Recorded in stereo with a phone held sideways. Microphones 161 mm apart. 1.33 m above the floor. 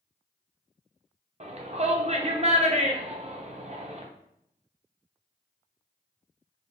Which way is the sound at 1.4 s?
45° right (ahead or behind).